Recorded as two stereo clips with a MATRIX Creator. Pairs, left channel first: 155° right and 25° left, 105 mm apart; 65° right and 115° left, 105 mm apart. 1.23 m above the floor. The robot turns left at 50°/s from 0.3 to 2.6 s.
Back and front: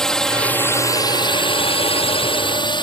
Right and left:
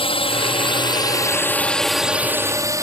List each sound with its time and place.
0.0 s a drone: 75° right; by 2.9 s 170° left